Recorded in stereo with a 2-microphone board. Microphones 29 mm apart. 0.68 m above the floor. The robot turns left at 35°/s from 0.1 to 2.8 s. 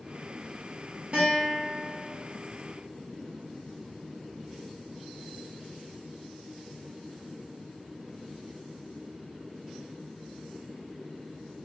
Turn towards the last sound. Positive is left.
turn(degrees=-160)